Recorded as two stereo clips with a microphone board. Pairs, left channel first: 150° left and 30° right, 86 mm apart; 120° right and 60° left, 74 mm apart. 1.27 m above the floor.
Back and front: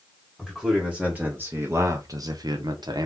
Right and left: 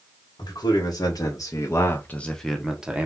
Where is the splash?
I don't hear a splash.